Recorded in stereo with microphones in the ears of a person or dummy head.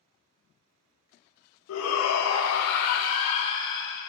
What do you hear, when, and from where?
1.7 s a shout: 80° left, 1.1 m; by 4.0 s 20° left (ahead or behind), 0.9 m